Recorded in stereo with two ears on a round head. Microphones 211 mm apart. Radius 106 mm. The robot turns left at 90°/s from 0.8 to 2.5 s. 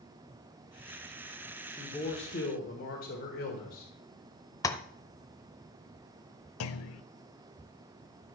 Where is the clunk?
65° left (ahead or behind), 0.6 m.